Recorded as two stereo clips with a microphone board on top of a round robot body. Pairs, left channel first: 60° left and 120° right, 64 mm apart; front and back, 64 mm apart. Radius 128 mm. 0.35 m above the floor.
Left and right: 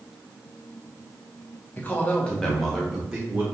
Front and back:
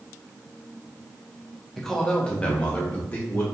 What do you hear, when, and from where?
1.8 s a man speaking: 80° left, 1.1 m; by 3.5 s 55° right, 1.4 m